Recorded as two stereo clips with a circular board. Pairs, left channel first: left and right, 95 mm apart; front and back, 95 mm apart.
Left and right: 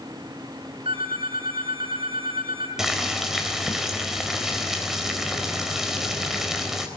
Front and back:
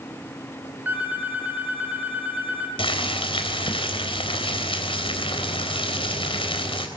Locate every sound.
0.8 s a phone ringing: 110° right, 6 m
2.8 s boiling: 5° right, 3.5 m